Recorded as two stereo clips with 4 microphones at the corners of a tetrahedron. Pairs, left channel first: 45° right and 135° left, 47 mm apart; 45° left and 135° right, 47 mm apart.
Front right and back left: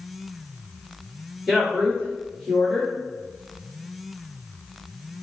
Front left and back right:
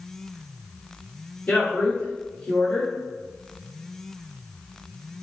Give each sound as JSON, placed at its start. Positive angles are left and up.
{"t": 1.5, "sound": "a woman speaking", "azimuth_deg": 40, "distance_m": 1.6}